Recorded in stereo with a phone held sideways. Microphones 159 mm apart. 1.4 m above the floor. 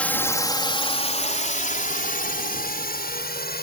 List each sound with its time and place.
0.0 s a drone: 10° left (ahead or behind); by 3.6 s 80° left